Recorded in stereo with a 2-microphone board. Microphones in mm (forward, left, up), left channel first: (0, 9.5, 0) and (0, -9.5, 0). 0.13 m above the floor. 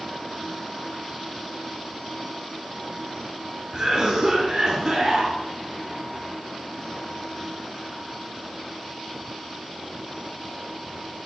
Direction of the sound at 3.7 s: 35° right (ahead or behind).